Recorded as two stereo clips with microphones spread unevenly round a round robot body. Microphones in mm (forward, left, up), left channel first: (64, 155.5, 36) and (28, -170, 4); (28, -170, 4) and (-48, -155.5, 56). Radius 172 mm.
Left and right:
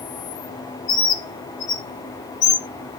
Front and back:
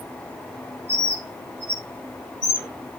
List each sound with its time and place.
0.9 s a bird: 70° left, 2 m